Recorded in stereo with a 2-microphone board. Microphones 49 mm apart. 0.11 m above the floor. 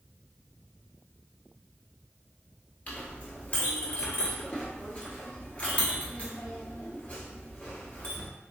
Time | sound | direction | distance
2.9 | a clink | 30° left (ahead or behind) | 1.3 m